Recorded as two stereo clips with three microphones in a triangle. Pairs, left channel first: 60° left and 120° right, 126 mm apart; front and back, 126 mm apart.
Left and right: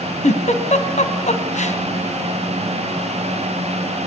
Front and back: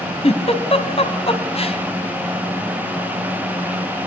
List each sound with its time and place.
0.2 s a giggle: 40° left, 2 m